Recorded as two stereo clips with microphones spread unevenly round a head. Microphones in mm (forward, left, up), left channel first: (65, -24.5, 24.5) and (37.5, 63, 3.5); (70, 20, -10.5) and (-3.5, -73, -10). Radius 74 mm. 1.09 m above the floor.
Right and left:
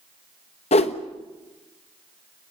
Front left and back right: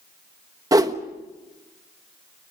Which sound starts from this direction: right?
A whoosh, at 0.7 s.